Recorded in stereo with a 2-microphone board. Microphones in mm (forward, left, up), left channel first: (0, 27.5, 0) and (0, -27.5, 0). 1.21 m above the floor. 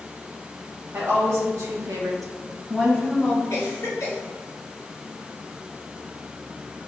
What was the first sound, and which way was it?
A woman speaking, 60° right (ahead or behind).